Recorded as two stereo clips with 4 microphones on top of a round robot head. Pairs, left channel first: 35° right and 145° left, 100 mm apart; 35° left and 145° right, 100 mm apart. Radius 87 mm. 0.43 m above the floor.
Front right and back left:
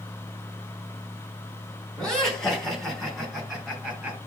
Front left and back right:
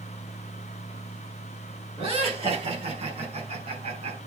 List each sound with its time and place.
2.0 s laughter: 120° right, 5 m; by 4.2 s 130° right, 5 m